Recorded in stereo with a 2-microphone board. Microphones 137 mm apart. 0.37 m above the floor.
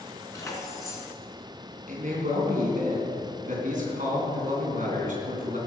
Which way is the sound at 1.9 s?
70° right (ahead or behind).